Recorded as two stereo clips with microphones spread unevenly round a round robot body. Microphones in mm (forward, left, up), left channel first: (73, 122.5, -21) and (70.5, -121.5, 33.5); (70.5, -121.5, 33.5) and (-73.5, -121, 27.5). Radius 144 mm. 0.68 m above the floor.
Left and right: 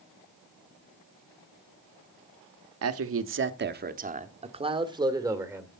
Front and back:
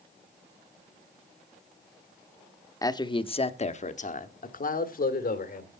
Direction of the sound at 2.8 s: 65° right.